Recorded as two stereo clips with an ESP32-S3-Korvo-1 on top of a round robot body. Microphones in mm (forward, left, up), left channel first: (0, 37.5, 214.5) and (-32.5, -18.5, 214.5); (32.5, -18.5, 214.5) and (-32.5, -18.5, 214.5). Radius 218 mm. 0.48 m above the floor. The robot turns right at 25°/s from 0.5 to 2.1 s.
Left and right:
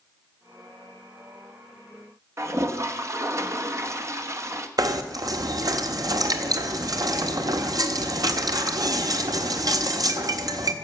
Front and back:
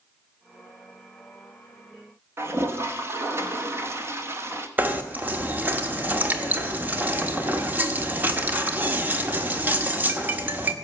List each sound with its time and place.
2.4 s a toilet flushing: 145° right, 2.0 m
4.8 s knocking: 120° right, 1.5 m